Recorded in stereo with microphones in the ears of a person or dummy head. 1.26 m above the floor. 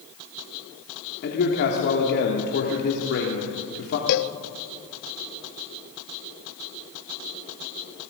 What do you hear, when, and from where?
1.2 s a man speaking: 55° left (ahead or behind), 2.5 m
4.1 s a cowbell: 55° left (ahead or behind), 0.6 m